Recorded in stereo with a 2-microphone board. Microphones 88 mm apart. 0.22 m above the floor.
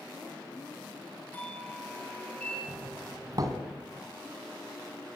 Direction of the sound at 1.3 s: 15° left (ahead or behind).